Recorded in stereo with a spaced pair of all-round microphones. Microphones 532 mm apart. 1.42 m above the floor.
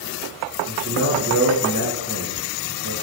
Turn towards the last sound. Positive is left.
turn(degrees=-25)  # may be behind; listen again after turning